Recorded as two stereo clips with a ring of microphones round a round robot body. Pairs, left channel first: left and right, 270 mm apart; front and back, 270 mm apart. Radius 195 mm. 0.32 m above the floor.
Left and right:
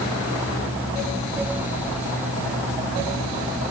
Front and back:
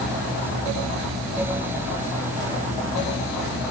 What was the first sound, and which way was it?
Only background noise.